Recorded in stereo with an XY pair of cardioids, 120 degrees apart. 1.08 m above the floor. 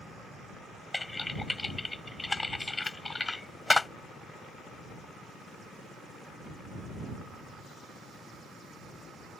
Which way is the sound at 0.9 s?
15° left.